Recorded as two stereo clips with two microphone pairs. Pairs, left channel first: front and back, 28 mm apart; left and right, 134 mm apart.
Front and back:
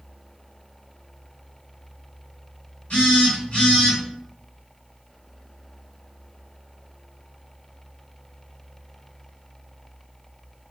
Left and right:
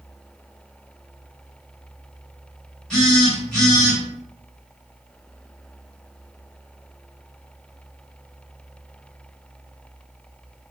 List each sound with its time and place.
2.9 s a phone buzzing: 5° left, 1.4 m